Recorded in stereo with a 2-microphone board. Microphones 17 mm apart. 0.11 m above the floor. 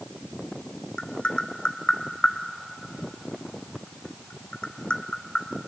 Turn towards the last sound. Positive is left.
turn(degrees=80)